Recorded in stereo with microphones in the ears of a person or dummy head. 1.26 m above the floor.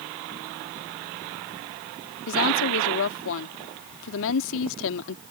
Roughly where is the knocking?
No knocking in this recording.